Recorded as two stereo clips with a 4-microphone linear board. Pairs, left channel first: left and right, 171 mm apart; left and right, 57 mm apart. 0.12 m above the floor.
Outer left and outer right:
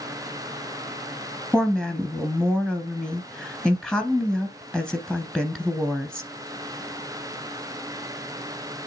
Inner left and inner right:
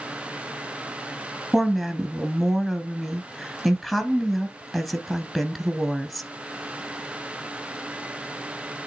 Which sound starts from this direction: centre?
A woman speaking, at 1.5 s.